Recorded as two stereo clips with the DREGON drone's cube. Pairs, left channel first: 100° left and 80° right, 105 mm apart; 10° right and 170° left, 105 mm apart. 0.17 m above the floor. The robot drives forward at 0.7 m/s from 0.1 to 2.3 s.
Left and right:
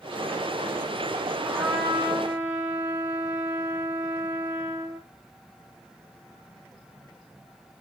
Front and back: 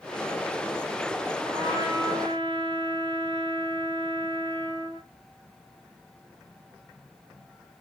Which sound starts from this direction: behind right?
A trumpet, at 1.4 s.